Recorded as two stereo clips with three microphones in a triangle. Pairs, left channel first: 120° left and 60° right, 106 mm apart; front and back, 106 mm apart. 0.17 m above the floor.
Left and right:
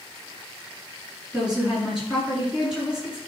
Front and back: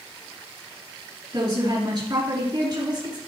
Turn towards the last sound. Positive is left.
turn(degrees=-140)